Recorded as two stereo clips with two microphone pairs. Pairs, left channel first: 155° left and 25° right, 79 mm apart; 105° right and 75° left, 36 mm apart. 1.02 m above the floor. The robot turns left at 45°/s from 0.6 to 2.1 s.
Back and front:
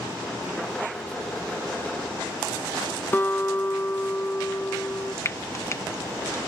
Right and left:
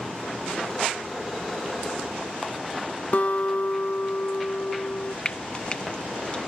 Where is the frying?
160° right.